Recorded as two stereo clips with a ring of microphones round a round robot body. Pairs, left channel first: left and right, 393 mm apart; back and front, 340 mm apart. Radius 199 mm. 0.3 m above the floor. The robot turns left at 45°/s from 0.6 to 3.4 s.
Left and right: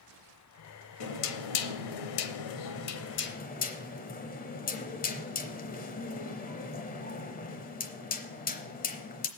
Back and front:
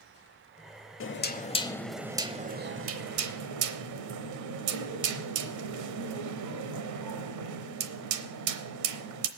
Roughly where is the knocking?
Behind left.